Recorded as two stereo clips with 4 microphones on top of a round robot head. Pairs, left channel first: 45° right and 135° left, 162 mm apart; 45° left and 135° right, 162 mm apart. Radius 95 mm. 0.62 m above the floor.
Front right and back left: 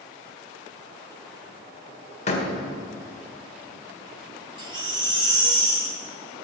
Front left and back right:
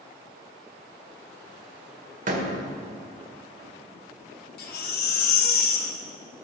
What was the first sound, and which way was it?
A door slam, 95° right.